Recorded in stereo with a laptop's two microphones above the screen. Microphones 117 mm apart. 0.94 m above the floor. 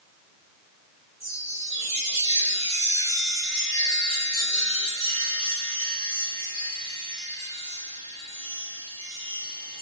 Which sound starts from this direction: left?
A chime, at 1.2 s.